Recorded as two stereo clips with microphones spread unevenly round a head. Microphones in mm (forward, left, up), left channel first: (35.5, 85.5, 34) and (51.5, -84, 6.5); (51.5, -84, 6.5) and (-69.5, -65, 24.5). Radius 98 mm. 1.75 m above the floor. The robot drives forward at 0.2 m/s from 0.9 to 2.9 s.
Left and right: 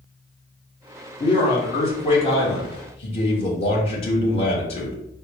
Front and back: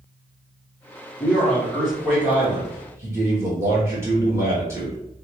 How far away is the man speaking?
About 0.7 m.